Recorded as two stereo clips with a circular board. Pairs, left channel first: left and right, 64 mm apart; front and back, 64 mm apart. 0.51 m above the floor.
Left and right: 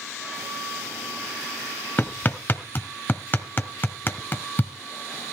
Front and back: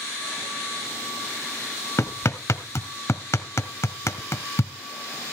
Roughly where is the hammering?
Ahead left.